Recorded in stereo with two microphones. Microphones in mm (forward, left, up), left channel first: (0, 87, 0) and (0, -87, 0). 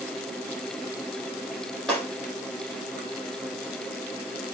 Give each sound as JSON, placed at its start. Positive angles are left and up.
{"t": 1.9, "sound": "breaking glass", "side_deg": 5, "distance_m": 7.5}